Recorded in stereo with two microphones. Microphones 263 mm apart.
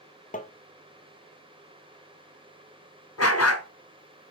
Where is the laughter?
I don't hear laughter.